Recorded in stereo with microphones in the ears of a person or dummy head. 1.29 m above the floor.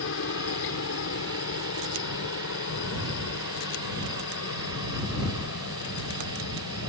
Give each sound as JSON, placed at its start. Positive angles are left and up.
{"t": 0.0, "sound": "a helicopter", "side_deg": 65}